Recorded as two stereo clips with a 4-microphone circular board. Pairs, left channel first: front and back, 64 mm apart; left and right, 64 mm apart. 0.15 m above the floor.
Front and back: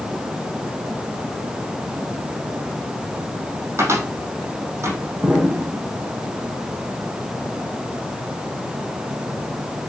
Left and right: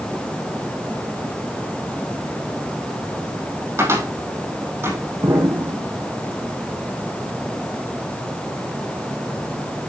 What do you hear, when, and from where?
3.8 s a cupboard door: 135° right, 4.5 m
5.2 s an explosion: 105° right, 4 m